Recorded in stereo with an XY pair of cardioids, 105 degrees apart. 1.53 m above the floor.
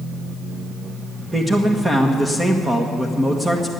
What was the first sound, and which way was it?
A man speaking, 20° right.